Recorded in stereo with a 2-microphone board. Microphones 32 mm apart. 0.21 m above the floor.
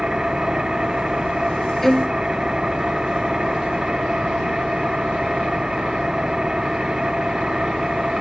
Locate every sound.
0.0 s an engine running: 20° right (ahead or behind)
1.8 s a violin: 10° left (ahead or behind)